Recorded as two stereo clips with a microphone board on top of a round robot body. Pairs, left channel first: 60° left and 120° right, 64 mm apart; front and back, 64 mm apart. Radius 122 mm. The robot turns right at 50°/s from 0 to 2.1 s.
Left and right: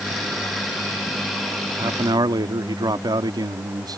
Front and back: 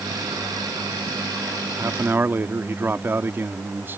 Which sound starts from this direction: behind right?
A man speaking, at 1.8 s.